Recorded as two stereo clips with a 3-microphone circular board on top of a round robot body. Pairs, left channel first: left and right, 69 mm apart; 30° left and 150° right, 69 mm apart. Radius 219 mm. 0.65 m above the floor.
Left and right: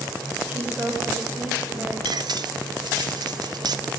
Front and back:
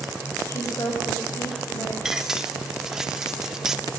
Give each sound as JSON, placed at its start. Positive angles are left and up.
{"t": 0.5, "sound": "a woman speaking", "azimuth_deg": -15, "distance_m": 6.0}
{"t": 2.0, "sound": "cutlery clinking", "azimuth_deg": -65, "distance_m": 1.3}